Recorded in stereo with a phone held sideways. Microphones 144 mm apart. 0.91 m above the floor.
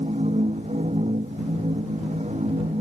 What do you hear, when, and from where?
0.0 s a machine running: 50° right (ahead or behind)